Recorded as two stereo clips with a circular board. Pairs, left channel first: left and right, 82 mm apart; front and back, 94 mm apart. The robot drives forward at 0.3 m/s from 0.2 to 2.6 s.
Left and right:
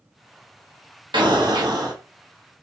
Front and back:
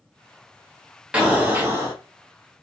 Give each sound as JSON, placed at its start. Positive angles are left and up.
{"t": 1.1, "sound": "an explosion", "azimuth_deg": -100, "distance_m": 0.7}